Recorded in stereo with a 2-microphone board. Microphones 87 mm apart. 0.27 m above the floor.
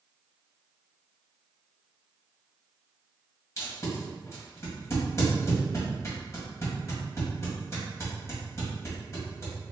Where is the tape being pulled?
35° left (ahead or behind), 1.9 m.